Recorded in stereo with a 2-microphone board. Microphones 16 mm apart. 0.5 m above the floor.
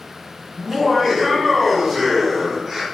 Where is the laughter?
25° right (ahead or behind), 1.6 m; by 2.8 s 35° right (ahead or behind), 1.7 m.